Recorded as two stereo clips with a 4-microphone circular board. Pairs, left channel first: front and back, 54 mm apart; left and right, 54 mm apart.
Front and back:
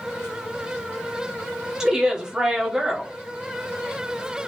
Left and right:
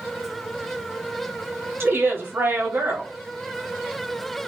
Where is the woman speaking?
110° right, 0.8 m.